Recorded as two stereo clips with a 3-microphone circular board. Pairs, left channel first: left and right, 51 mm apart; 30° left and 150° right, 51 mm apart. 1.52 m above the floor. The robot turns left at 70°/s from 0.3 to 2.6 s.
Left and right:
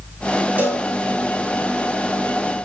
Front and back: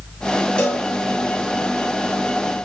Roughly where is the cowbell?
Ahead right.